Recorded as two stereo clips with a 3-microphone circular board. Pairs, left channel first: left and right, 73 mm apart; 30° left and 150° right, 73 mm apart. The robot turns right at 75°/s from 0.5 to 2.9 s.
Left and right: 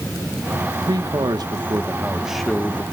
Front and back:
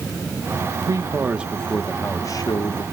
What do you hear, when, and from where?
0.9 s a man speaking: 115° right, 1.2 m; by 2.8 s 35° left, 1.2 m